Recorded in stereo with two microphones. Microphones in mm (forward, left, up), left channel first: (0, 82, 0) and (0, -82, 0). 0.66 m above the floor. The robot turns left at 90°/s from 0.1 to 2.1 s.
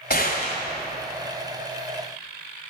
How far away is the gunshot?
About 2 m.